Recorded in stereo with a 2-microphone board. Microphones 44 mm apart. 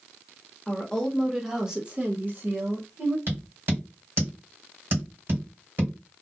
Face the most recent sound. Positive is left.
turn(degrees=-50)  # may be behind; listen again after turning